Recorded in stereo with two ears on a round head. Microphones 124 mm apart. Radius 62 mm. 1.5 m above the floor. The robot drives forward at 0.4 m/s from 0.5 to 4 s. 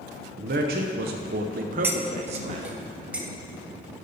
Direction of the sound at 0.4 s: 65° right (ahead or behind).